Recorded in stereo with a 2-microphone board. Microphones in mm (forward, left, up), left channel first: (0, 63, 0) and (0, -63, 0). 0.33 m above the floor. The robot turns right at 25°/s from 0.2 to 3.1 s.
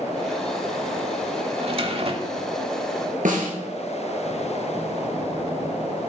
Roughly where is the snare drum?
Right.